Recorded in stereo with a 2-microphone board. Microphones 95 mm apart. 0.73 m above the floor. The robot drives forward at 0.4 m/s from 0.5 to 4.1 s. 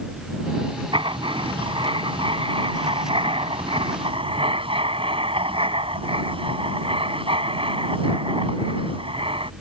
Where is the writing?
60° right (ahead or behind); by 9.5 s 70° right (ahead or behind).